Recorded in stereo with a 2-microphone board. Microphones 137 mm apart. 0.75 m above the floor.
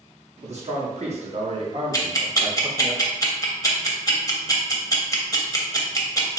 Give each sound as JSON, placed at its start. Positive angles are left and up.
{"t": 0.4, "sound": "a man speaking", "side_deg": -55, "distance_m": 1.2}
{"t": 1.9, "sound": "ticking", "side_deg": 25, "distance_m": 0.5}